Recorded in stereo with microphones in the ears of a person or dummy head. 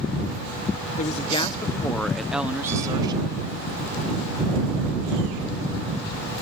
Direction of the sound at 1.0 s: 45° left (ahead or behind).